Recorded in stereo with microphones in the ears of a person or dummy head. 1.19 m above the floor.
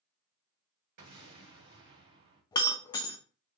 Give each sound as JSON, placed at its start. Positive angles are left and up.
{"t": 1.0, "sound": "an explosion", "side_deg": -65, "distance_m": 1.7}
{"t": 2.5, "sound": "breaking glass", "side_deg": 15, "distance_m": 0.6}